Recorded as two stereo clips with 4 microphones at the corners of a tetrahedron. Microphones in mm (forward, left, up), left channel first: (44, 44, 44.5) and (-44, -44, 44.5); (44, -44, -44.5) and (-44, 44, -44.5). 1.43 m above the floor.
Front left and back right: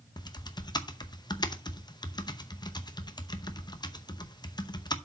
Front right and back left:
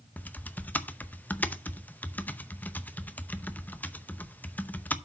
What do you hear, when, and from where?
0.2 s typing on a keyboard: 25° left, 0.7 m